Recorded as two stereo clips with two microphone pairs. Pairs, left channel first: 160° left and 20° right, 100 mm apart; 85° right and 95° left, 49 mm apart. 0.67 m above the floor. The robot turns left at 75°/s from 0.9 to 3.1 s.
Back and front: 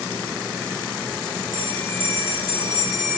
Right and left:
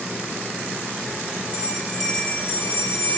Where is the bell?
35° left, 1.2 m; by 3.2 s 85° right, 1.2 m.